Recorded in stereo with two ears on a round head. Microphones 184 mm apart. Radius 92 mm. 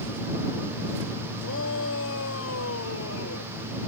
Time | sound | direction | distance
1.4 | a shout | 70° left (ahead or behind) | ?